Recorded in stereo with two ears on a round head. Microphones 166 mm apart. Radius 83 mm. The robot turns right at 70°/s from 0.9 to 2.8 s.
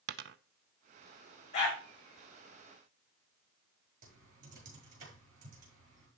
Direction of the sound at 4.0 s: 45° right (ahead or behind).